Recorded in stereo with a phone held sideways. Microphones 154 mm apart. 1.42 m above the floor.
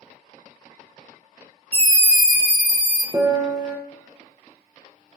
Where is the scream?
40° right (ahead or behind), 0.6 m; by 3.0 s 40° left (ahead or behind), 1.1 m.